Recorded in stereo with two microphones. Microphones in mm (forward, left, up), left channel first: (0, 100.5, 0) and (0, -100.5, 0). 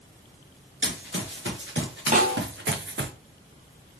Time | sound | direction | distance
0.8 | running footsteps | 70° right (ahead or behind) | 2 m
2.1 | a snare drum | 40° right (ahead or behind) | 2.5 m